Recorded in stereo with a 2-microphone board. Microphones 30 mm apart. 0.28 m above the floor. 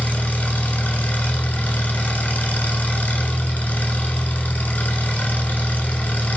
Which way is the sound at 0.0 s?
75° left (ahead or behind).